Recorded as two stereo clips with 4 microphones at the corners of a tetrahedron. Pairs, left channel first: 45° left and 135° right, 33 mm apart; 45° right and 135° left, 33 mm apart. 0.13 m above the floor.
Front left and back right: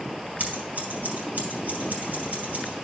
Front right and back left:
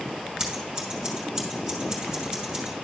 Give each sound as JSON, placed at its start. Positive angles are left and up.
{"t": 0.4, "sound": "scissors", "azimuth_deg": -160, "distance_m": 2.5}